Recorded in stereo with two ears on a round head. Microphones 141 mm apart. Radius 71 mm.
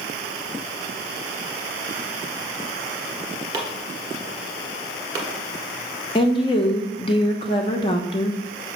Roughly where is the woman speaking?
Left.